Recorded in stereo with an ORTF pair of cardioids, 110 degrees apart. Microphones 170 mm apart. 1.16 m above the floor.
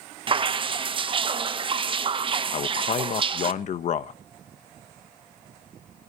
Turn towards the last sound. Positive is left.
turn(degrees=45)